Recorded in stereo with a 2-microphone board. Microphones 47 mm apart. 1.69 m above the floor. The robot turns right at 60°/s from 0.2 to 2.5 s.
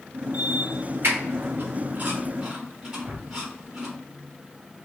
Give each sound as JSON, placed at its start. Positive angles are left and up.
{"t": 1.0, "sound": "a squeak", "side_deg": -65, "distance_m": 2.5}
{"t": 3.0, "sound": "a whoosh", "side_deg": -25, "distance_m": 1.5}